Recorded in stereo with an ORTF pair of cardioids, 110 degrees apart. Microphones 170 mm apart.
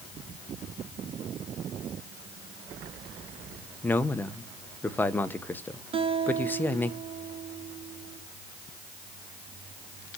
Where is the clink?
No clink in this recording.